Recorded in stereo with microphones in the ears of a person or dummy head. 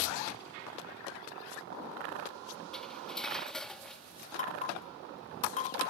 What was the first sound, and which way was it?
Cutlery clinking, 10° left (ahead or behind).